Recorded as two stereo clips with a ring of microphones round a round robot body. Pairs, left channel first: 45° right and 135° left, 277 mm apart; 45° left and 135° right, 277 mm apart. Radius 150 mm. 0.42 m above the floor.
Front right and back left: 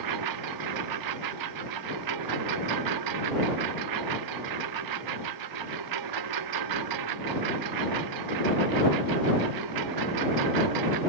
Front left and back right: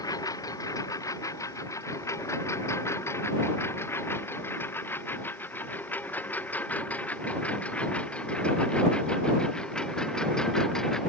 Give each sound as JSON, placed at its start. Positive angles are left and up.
{"t": 0.0, "sound": "a lawn mower", "azimuth_deg": 125}